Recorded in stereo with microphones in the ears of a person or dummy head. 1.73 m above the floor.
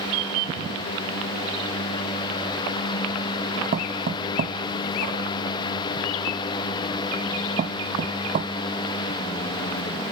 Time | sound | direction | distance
3.7 | knocking | 40° right (ahead or behind) | ?